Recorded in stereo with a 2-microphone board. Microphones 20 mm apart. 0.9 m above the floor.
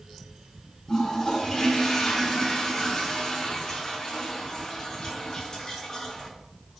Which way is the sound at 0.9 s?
40° left (ahead or behind).